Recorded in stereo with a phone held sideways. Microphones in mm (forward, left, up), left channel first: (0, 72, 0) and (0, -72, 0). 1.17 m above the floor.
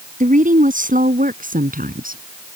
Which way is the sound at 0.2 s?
65° right (ahead or behind).